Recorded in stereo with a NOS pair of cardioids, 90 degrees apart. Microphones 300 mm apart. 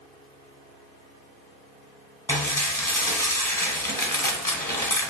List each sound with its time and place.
2.3 s dishes clattering: 10° left, 0.7 m